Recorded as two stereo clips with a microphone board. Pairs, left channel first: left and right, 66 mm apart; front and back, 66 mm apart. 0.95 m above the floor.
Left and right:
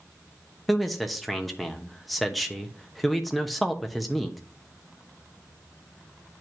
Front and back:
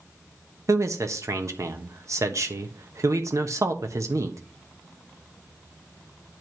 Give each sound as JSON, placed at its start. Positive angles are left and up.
{"t": 0.7, "sound": "a man speaking", "azimuth_deg": 180, "distance_m": 1.0}